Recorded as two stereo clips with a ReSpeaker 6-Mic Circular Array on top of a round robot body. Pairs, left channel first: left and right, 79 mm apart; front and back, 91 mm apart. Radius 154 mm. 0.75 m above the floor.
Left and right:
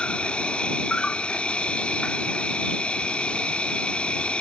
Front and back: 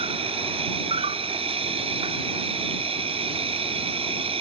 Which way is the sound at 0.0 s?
165° left.